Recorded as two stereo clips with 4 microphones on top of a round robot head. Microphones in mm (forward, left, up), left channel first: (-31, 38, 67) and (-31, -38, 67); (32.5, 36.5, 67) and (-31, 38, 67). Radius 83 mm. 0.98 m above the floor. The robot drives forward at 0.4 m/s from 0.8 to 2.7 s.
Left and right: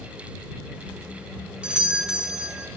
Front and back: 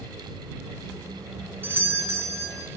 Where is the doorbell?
160° right, 0.8 m; by 2.7 s 170° right, 1.1 m.